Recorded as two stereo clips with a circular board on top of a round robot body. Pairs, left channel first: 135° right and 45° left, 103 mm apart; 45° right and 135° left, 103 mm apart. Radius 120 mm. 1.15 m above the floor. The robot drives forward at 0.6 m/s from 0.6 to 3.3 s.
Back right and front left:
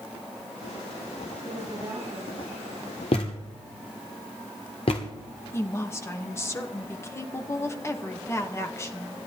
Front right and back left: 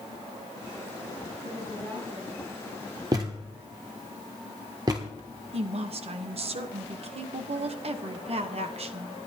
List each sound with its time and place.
1.4 s a woman speaking: 110° left, 9.5 m
3.1 s a thud: 170° right, 1.1 m
5.5 s a woman speaking: 160° left, 1.2 m